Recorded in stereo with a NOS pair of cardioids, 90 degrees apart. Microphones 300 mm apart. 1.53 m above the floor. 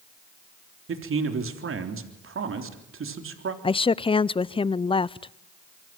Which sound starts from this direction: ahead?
A woman speaking, at 3.6 s.